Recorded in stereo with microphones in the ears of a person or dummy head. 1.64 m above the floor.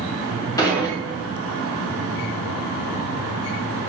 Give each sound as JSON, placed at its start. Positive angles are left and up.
{"t": 0.6, "sound": "dishes clattering", "side_deg": 25, "distance_m": 1.9}